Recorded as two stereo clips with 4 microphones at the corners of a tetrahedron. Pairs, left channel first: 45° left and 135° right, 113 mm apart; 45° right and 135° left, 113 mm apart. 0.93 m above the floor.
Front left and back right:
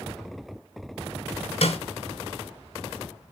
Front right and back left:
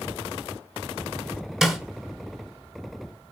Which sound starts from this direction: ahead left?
A snare drum, at 1.6 s.